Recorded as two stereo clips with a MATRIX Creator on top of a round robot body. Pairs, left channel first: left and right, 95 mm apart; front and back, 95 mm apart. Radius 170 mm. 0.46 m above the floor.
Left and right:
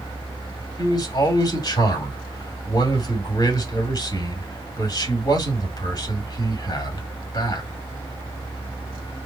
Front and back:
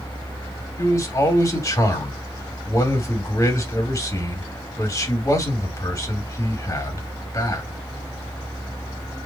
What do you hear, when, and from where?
0.8 s a man speaking: 50° left, 2.5 m